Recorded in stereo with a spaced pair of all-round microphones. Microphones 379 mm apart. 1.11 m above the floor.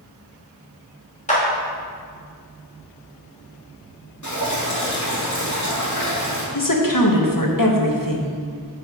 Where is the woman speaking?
60° left (ahead or behind), 1.2 m.